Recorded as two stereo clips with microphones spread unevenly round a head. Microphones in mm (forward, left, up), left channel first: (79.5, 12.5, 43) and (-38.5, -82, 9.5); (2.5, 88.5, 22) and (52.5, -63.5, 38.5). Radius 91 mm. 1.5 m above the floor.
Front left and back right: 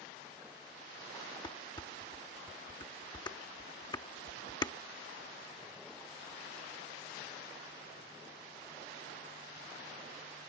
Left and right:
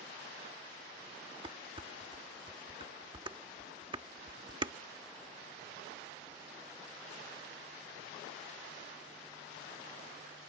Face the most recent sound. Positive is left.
turn(degrees=-15)